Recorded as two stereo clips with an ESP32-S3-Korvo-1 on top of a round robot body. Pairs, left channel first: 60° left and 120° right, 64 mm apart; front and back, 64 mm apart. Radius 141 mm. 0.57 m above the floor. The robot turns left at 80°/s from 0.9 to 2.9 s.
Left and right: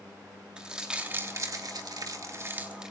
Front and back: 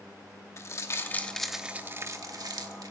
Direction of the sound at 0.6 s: 45° right.